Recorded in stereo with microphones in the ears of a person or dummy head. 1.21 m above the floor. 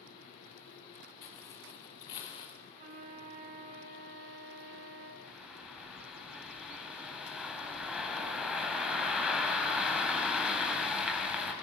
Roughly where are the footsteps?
Left.